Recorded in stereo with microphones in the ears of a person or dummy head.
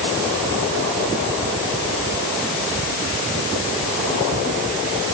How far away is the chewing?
I don't hear chewing.